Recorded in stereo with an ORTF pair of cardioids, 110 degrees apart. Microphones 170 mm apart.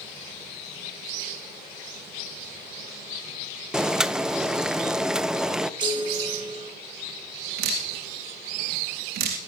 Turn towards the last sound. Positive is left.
turn(degrees=-65)